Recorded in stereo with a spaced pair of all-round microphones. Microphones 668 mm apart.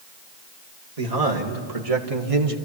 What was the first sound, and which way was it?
A man speaking, 65° right (ahead or behind).